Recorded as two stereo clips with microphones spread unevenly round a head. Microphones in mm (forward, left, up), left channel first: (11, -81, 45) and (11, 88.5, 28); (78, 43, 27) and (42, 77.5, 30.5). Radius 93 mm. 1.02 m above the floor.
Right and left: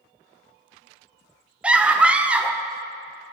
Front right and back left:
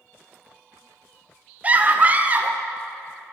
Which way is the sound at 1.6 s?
155° left.